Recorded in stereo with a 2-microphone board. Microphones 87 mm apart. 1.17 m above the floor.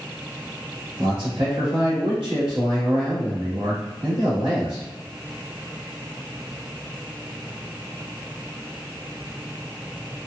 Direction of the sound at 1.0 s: 80° right.